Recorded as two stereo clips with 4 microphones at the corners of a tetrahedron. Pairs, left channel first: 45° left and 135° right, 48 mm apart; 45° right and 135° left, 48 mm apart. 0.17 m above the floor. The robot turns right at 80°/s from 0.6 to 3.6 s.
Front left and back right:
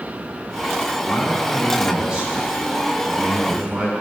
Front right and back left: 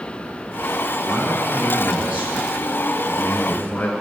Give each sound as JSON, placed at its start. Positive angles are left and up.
{"t": 1.0, "sound": "a man speaking", "azimuth_deg": 70, "distance_m": 2.0}